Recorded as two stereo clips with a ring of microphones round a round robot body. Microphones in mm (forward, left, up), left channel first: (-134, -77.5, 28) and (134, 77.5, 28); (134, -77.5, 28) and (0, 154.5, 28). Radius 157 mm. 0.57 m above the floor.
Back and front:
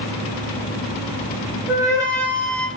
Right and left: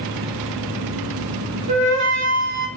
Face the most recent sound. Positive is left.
turn(degrees=130)